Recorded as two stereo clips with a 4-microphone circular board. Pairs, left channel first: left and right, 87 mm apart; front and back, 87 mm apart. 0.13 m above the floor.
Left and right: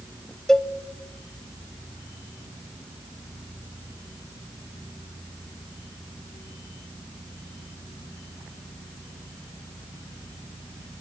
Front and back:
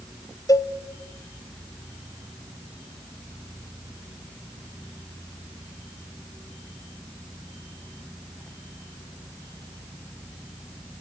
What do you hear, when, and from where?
0.5 s a cowbell: 10° left, 0.5 m